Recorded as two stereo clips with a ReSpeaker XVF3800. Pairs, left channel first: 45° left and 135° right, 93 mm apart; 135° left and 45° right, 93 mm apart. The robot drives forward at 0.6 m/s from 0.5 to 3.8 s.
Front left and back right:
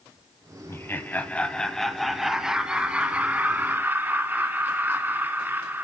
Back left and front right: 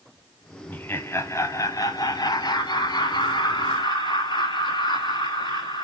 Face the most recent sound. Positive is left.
turn(degrees=155)